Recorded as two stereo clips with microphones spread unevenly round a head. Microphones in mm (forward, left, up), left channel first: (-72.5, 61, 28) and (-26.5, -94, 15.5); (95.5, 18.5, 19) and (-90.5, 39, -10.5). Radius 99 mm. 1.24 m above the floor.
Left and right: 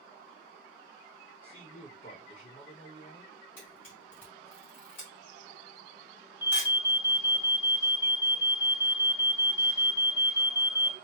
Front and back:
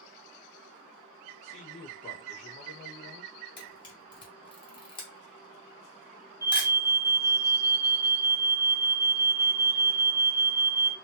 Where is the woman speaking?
50° left, 1.5 m.